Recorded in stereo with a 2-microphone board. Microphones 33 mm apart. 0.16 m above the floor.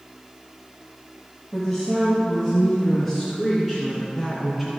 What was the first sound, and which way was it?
A woman speaking, centre (ahead or behind).